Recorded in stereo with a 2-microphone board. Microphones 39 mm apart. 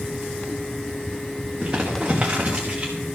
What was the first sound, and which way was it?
Crumpling, 20° right (ahead or behind).